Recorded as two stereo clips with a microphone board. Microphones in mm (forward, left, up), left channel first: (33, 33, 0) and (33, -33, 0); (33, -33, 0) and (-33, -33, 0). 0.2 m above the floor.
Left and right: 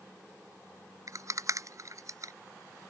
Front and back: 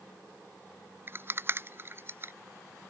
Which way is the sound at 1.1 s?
125° right.